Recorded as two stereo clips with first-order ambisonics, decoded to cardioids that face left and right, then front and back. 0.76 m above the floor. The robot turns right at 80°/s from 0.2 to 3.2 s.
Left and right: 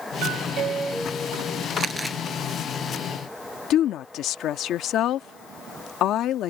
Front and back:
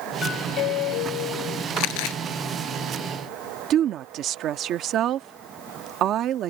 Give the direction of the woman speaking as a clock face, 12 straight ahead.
7 o'clock.